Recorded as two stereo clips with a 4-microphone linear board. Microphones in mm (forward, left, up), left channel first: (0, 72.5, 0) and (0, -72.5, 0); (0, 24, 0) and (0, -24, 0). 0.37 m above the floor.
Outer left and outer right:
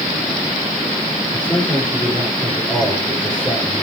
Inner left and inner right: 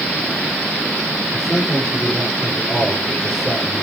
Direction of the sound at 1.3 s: 5° left (ahead or behind).